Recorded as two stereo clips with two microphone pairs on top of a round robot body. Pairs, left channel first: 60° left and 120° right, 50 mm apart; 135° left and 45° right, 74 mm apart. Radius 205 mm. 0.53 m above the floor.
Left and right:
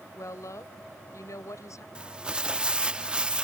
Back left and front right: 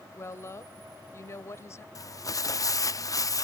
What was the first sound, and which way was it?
A woman speaking, 85° left.